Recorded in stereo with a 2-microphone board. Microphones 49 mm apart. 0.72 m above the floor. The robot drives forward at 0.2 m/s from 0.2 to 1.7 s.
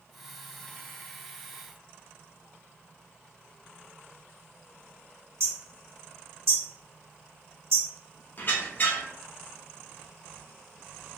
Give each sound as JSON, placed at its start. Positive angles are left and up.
{"t": 5.4, "sound": "hammering", "side_deg": -60, "distance_m": 0.9}
{"t": 8.4, "sound": "a squeak", "side_deg": 40, "distance_m": 0.5}